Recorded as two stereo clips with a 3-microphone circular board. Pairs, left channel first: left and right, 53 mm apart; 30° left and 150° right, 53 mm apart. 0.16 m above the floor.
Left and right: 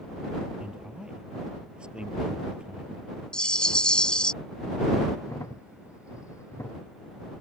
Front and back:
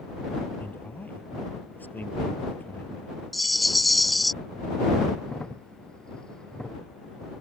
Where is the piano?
No piano in this recording.